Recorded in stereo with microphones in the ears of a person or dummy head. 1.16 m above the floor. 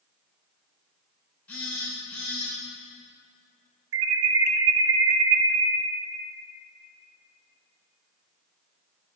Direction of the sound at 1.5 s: 10° left (ahead or behind).